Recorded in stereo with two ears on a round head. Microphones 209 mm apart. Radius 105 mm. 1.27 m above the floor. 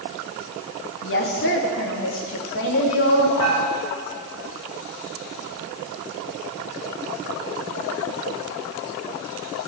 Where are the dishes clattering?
85° left, 6.5 m.